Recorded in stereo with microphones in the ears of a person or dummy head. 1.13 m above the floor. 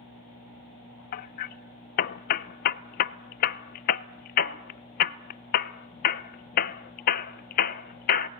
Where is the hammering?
45° left (ahead or behind), 0.5 m.